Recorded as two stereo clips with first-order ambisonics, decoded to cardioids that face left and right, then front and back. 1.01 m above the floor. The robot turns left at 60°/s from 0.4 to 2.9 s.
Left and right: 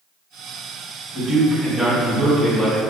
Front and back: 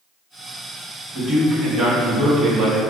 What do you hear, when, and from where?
1.1 s a man speaking: 125° right, 1.2 m; by 2.8 s 135° left, 1.2 m